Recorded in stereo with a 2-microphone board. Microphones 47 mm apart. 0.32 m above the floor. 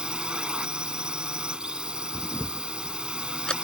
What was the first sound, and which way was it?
A drone, 20° right (ahead or behind).